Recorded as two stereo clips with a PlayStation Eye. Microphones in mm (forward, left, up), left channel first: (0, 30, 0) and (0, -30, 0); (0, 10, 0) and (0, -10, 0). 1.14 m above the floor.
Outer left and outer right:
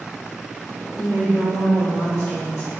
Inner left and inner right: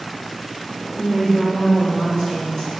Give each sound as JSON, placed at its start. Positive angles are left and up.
{"t": 1.0, "sound": "a woman speaking", "side_deg": 60, "distance_m": 1.8}